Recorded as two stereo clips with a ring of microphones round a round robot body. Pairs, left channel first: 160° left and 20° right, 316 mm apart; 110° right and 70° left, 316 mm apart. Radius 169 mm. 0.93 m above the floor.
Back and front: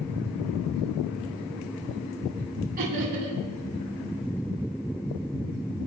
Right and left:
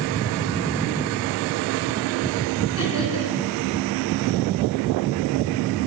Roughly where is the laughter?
Right.